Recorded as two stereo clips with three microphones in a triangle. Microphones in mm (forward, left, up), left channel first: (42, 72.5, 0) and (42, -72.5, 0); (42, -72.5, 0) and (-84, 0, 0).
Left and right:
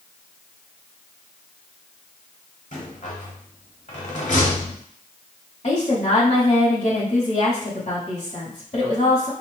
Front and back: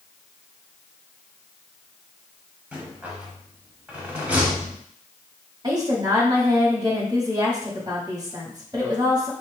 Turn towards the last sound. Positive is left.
turn(degrees=95)